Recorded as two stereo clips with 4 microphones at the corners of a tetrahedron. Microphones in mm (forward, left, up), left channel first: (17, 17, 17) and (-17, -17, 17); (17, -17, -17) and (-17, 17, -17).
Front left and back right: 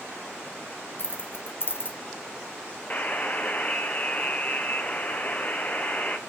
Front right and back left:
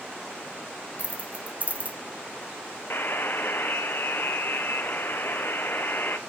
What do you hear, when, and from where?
1.0 s keys jangling: 85° left, 1.1 m
2.9 s a buzzer: 10° right, 1.0 m